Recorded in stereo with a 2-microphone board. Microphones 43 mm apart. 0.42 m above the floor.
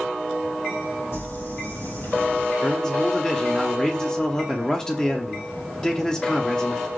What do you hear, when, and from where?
1.1 s crumpling: 70° left (ahead or behind), 3.5 m
2.6 s a man speaking: 15° left (ahead or behind), 0.8 m